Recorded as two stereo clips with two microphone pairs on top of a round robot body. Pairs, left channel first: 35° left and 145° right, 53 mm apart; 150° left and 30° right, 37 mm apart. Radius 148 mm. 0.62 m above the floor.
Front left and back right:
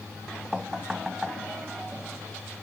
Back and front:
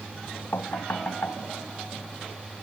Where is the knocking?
130° left.